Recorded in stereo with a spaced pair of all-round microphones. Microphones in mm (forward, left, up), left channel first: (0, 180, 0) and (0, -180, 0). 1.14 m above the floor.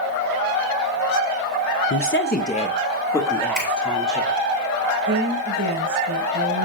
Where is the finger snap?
30° right (ahead or behind), 3.5 m.